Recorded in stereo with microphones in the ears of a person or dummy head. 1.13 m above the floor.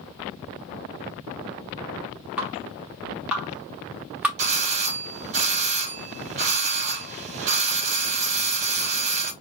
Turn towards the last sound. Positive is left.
turn(degrees=-30)  # may be behind; listen again after turning